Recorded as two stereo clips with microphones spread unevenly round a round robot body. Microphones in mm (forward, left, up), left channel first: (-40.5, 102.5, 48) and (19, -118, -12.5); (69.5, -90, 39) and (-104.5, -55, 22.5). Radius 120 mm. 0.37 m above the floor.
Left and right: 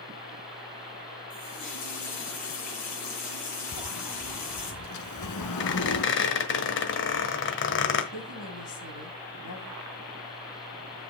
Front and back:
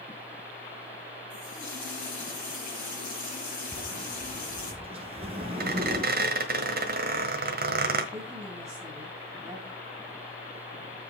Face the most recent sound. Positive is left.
turn(degrees=95)